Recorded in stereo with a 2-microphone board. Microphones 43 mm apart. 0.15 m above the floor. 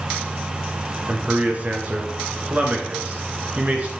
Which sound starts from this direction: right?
A man speaking, at 1.1 s.